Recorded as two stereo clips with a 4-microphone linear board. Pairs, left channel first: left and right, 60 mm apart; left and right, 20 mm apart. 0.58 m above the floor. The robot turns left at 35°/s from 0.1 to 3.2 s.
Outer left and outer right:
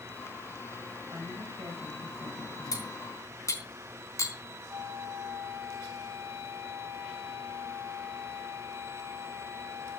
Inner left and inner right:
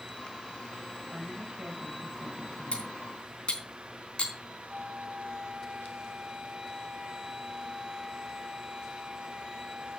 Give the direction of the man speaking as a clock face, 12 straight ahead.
2 o'clock.